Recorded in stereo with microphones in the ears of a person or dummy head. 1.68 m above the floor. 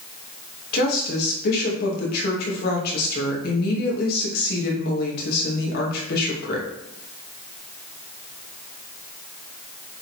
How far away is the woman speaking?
About 2.5 m.